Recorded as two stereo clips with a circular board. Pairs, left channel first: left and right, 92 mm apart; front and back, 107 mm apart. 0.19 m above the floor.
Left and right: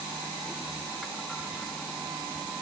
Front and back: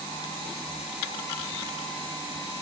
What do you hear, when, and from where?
Only background noise.